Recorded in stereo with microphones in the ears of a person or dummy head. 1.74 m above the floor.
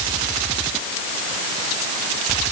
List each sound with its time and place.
Only background noise.